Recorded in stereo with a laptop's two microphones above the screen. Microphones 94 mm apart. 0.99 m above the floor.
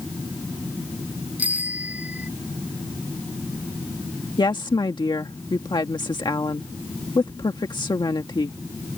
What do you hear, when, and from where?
1.4 s a bicycle bell: 15° right (ahead or behind)
4.4 s a woman speaking: 50° left (ahead or behind)